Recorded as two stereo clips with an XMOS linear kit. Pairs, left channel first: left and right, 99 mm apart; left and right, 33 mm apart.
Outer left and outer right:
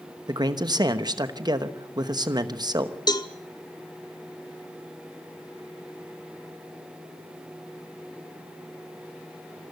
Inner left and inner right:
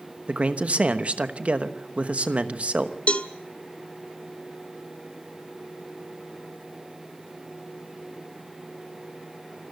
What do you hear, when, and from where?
0.3 s a man speaking: 40° right (ahead or behind), 1.0 m
3.1 s a cowbell: 40° left (ahead or behind), 1.2 m